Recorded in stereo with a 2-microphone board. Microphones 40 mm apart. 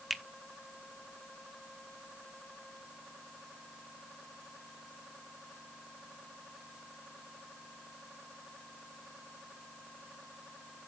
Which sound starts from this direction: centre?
A finger snap, at 0.1 s.